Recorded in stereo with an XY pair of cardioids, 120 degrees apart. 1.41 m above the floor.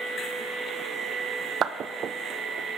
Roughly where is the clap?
Ahead right.